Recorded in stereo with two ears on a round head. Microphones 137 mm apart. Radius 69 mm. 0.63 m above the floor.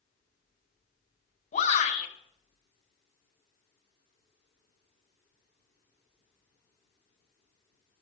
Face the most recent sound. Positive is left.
turn(degrees=50)  # may be behind; listen again after turning